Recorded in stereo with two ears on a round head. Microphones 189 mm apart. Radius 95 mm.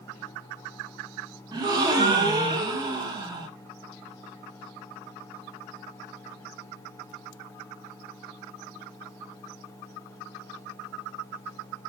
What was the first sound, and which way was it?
A gasp, 20° right (ahead or behind).